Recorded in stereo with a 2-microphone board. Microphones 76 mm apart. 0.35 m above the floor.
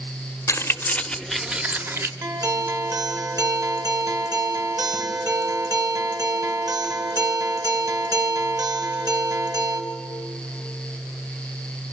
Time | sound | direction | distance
0.5 | keys jangling | 35° left (ahead or behind) | 0.9 m
2.2 | a guitar | 50° right (ahead or behind) | 2.0 m